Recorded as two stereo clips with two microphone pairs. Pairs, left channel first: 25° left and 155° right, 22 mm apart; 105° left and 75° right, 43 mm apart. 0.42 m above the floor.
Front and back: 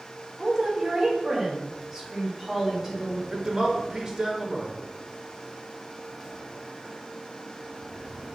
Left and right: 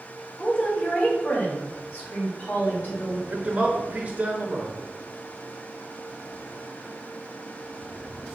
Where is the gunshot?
I don't hear a gunshot.